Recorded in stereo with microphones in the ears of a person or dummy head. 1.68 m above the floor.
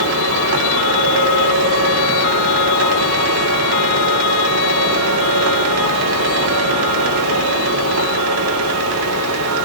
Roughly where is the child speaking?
I don't hear a child speaking.